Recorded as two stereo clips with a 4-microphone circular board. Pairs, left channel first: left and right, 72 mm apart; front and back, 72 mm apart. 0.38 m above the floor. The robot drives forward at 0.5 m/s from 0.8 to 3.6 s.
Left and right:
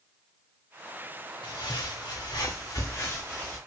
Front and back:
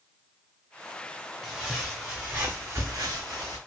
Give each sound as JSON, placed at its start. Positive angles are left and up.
{"t": 1.4, "sound": "footsteps", "azimuth_deg": 85, "distance_m": 1.6}